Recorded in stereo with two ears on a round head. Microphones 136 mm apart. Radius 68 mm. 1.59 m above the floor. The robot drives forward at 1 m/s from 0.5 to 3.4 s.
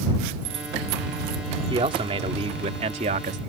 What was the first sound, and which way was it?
A man speaking, 35° right (ahead or behind).